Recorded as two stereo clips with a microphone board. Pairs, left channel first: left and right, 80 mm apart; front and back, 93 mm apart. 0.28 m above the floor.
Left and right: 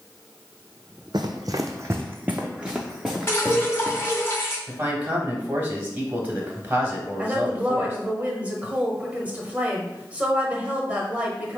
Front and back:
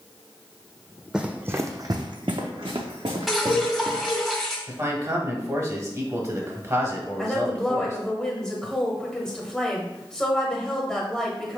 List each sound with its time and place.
1.1 s running footsteps: 100° right, 0.6 m; by 4.3 s 175° left, 1.6 m
3.3 s dripping: 90° left, 1.5 m
4.7 s a man speaking: 145° right, 1.2 m
7.2 s a woman speaking: 70° right, 1.1 m